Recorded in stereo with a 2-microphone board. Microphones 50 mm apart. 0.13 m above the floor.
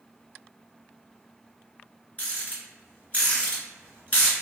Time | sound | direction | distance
2.2 | a rattle | 25° left (ahead or behind) | 1.9 m